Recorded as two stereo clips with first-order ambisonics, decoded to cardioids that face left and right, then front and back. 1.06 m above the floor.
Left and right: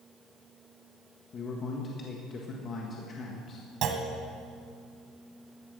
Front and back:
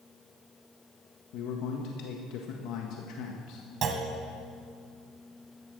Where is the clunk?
130° right, 1.5 m.